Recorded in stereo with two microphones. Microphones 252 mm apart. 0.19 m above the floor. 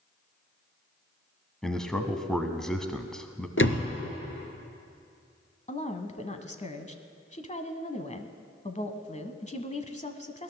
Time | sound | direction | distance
1.6 | a man speaking | centre (ahead or behind) | 1.1 m
3.6 | a door slam | 55° left (ahead or behind) | 1.8 m
5.7 | a woman speaking | 30° left (ahead or behind) | 1.1 m